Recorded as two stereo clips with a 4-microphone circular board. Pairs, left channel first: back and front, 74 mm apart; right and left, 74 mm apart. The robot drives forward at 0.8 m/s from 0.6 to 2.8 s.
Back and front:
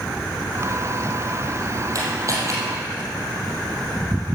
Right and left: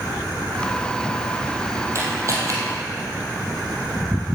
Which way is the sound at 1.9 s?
40° left.